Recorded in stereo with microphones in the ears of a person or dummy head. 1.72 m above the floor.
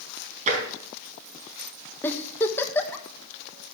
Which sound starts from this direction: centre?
A giggle, at 2.0 s.